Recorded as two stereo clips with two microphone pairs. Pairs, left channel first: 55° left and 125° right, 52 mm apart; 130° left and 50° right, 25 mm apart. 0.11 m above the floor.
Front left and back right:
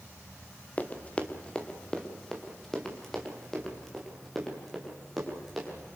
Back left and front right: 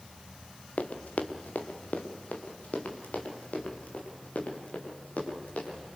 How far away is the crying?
I don't hear crying.